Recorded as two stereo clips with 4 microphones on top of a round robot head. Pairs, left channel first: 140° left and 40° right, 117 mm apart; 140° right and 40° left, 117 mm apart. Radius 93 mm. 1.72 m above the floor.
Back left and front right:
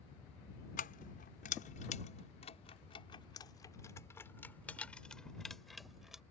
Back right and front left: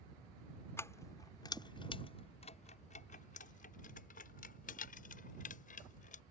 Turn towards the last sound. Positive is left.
turn(degrees=-125)